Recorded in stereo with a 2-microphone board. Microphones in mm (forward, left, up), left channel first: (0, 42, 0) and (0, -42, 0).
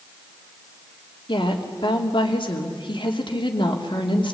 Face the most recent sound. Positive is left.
turn(degrees=75)  # may be behind; listen again after turning